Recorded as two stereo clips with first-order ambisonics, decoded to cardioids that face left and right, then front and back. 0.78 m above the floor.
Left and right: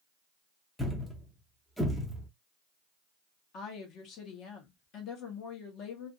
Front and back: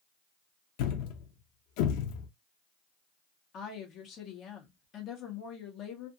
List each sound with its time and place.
0.8 s a thud: straight ahead, 0.6 m
3.5 s a woman speaking: 55° left, 1.0 m